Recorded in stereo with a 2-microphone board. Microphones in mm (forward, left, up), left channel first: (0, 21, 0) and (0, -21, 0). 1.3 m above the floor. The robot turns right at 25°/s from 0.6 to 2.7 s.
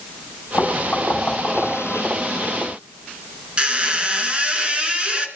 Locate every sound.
0.6 s knocking: 50° left (ahead or behind), 5.5 m; by 1.8 s 20° left (ahead or behind), 5.5 m
3.6 s a squeak: 25° right (ahead or behind), 1.8 m